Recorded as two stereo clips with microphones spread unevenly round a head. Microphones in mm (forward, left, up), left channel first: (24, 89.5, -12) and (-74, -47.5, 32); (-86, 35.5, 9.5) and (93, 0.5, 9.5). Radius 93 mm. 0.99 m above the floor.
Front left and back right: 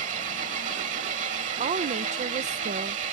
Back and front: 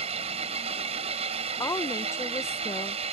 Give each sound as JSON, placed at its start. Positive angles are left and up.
{"t": 0.0, "sound": "an engine running", "azimuth_deg": -70}
{"t": 1.6, "sound": "a woman speaking", "azimuth_deg": -135}